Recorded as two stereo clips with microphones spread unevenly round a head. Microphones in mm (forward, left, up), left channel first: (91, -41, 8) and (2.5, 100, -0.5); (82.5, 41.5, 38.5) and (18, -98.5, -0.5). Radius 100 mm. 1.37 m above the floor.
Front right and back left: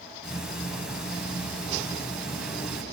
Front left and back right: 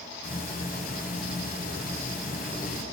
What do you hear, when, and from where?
0.2 s ticking: 35° left, 9.5 m